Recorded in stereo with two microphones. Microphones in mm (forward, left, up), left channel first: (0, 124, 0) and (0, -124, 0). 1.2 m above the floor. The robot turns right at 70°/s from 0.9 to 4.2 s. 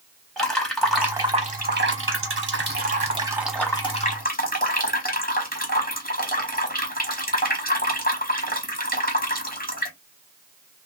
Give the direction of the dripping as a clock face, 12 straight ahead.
6 o'clock.